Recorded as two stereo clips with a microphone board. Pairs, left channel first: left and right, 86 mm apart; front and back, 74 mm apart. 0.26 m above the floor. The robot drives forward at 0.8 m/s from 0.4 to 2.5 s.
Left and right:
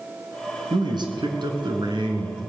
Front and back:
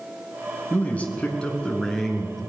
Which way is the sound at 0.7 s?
70° right.